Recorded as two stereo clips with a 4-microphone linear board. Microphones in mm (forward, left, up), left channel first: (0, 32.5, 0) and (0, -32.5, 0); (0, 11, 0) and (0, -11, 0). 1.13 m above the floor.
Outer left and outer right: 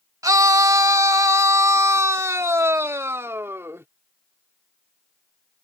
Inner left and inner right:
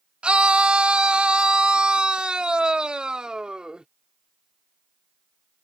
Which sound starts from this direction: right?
A scream, at 0.2 s.